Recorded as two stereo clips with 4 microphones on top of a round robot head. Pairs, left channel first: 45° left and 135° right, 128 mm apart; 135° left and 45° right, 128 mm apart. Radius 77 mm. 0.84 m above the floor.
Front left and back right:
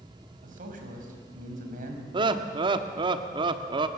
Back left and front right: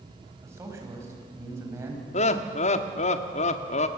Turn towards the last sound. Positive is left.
turn(degrees=170)